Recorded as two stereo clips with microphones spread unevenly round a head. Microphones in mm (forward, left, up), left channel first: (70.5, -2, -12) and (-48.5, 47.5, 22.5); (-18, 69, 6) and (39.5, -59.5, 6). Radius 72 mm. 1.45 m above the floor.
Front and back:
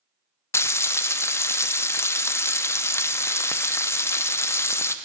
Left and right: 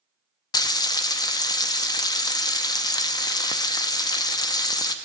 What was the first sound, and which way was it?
Frying, 55° left.